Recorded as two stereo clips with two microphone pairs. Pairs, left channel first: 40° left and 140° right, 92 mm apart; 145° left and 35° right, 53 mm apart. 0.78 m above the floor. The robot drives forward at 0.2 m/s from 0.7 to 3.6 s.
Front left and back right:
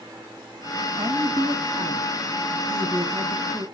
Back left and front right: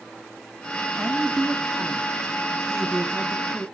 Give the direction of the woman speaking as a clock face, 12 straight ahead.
4 o'clock.